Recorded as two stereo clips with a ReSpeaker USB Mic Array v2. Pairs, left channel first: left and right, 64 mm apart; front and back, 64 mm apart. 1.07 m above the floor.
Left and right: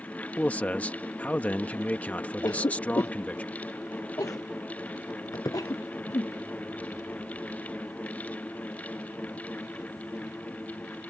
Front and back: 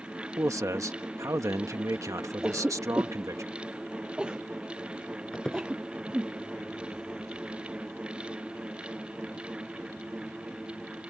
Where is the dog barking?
No dog barking in this recording.